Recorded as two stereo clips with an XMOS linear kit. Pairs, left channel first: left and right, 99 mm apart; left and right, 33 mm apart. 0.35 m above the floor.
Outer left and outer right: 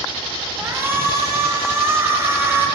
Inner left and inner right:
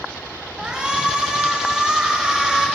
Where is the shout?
25° right (ahead or behind), 2.0 m.